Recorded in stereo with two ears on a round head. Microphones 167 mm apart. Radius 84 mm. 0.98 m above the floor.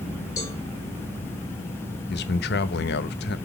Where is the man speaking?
60° left (ahead or behind), 0.8 m.